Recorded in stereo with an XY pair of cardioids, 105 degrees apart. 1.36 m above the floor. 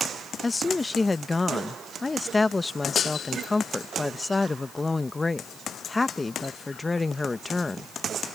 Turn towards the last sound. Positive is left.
turn(degrees=20)